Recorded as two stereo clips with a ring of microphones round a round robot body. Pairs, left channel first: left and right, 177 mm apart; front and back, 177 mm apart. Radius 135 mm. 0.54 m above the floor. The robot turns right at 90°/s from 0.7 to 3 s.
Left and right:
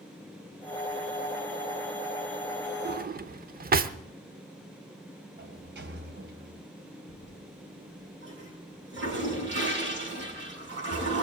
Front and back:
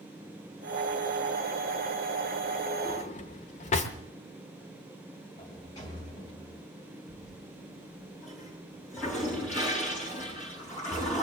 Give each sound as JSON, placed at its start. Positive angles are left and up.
{"t": 2.9, "sound": "a drawer", "azimuth_deg": -65, "distance_m": 0.9}
{"t": 5.4, "sound": "a sliding door", "azimuth_deg": -75, "distance_m": 2.5}
{"t": 7.1, "sound": "a toilet flushing", "azimuth_deg": -80, "distance_m": 7.0}